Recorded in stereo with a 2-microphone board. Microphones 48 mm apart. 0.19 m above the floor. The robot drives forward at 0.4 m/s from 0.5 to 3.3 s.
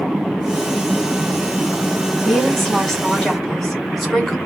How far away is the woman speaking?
About 1.2 m.